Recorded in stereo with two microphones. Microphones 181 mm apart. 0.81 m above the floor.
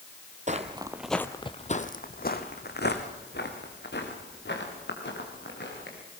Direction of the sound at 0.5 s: 40° right (ahead or behind).